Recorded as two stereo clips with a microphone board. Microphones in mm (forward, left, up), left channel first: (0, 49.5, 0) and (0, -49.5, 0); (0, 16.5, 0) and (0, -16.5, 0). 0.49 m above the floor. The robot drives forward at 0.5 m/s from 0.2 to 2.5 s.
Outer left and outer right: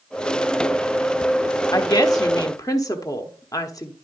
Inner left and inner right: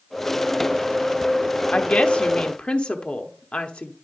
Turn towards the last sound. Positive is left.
turn(degrees=35)  # may be behind; listen again after turning